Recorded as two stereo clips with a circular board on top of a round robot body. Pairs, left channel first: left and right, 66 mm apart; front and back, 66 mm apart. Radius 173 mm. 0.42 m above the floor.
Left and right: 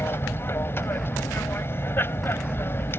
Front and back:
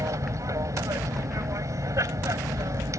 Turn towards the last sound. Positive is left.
turn(degrees=145)